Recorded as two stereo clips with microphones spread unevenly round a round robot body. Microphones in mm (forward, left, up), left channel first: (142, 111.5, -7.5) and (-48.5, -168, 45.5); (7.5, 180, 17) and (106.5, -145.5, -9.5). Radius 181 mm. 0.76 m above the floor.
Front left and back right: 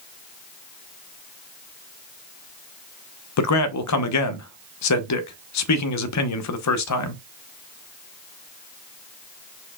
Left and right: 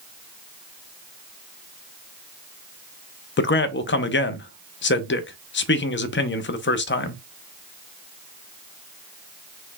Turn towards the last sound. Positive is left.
turn(degrees=50)